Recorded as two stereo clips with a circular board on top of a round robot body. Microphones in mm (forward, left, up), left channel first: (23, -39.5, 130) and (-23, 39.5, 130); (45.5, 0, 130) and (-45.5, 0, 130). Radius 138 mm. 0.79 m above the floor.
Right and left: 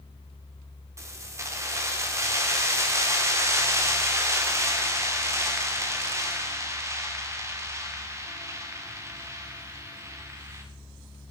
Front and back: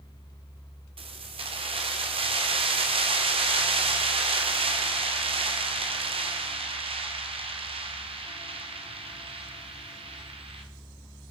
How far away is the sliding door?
I don't hear a sliding door.